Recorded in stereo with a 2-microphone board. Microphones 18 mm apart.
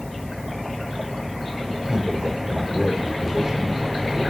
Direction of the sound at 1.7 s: 45° right (ahead or behind).